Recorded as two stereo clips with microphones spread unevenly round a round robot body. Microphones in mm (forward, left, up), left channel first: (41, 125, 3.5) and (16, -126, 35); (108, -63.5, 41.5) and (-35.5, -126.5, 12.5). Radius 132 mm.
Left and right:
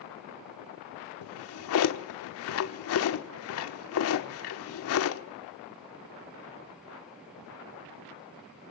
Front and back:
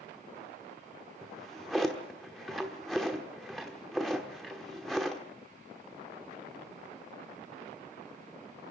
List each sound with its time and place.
1.2 s a drawer: 115° left, 1.1 m